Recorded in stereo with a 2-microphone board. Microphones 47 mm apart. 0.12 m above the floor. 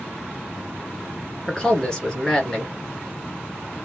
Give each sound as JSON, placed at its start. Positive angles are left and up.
{"t": 1.5, "sound": "a man speaking", "side_deg": 15, "distance_m": 2.0}